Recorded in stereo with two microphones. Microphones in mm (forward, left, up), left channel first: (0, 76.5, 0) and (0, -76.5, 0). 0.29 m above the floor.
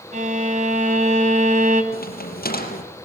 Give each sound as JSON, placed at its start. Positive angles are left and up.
{"t": 0.1, "sound": "a violin", "side_deg": -55, "distance_m": 2.0}
{"t": 1.9, "sound": "a crack", "side_deg": 75, "distance_m": 5.0}